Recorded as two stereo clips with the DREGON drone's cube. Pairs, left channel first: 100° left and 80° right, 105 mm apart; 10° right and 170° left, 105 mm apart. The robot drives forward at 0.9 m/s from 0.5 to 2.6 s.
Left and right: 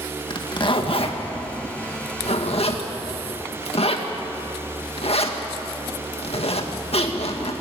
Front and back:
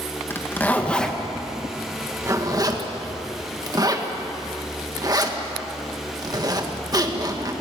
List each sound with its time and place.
0.3 s a zipper: 60° left, 1.9 m; by 7.5 s 120° left, 1.9 m